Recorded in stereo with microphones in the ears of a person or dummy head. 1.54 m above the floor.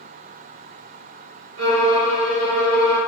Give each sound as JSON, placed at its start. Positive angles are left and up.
{"t": 1.6, "sound": "a violin", "side_deg": -80, "distance_m": 1.5}